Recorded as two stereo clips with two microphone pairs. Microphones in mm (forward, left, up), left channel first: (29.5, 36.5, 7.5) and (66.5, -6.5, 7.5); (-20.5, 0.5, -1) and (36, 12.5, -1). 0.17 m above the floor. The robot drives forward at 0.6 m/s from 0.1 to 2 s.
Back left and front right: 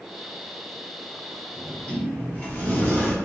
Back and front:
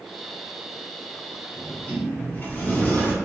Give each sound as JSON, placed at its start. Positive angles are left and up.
{"t": 1.6, "sound": "a sliding door", "azimuth_deg": 150, "distance_m": 1.2}